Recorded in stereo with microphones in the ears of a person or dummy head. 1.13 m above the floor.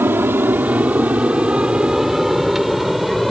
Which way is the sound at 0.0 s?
10° right (ahead or behind).